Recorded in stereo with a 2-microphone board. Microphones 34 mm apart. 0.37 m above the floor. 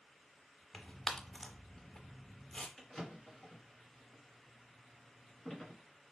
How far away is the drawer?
About 2 m.